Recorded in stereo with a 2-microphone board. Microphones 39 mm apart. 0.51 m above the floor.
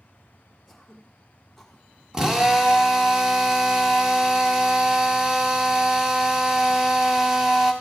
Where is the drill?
15° right (ahead or behind), 1.0 m.